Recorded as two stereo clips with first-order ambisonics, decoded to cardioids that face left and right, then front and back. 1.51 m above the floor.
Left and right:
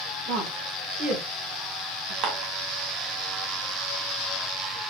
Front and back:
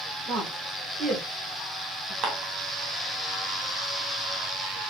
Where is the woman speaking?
120° right, 1.8 m.